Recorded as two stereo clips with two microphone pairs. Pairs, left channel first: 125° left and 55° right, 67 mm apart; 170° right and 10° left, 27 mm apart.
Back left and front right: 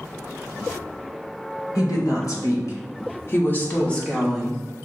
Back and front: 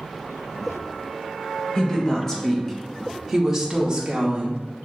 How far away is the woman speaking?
About 1.9 m.